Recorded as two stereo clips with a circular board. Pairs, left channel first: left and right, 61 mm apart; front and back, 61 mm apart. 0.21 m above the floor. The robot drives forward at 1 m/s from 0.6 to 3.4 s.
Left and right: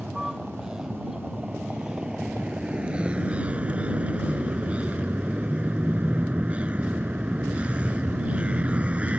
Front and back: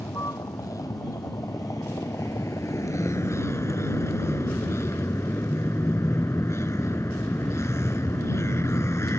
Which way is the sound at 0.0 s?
10° right.